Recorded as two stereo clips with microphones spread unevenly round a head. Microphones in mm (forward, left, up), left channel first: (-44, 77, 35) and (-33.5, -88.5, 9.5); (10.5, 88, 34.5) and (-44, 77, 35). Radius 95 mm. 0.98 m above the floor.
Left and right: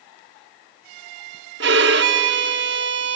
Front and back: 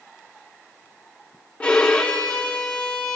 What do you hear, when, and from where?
1.6 s a violin: 65° right, 0.7 m